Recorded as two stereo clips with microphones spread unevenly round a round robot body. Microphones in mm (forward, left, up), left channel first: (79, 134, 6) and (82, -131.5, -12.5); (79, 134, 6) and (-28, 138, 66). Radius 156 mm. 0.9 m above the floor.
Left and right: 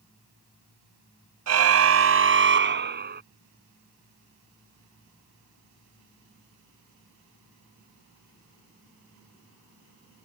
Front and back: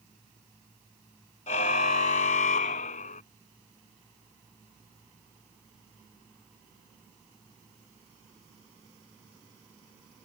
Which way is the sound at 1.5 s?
65° right.